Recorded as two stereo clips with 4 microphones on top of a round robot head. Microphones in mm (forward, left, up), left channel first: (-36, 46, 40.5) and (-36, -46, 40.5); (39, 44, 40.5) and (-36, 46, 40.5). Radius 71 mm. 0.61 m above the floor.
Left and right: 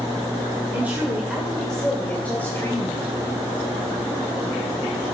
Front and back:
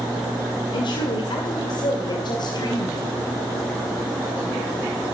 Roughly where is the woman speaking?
Ahead.